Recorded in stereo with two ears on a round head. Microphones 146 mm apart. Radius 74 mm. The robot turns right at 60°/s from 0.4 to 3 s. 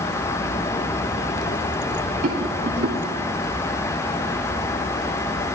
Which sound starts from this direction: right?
A rattle, at 2.2 s.